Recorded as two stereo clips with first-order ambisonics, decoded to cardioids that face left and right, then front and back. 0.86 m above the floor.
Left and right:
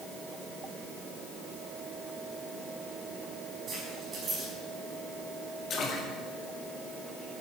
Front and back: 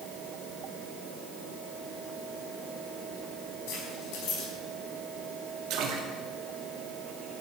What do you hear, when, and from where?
3.7 s keys jangling: 25° right, 4.5 m
5.7 s a splash: 150° left, 2.0 m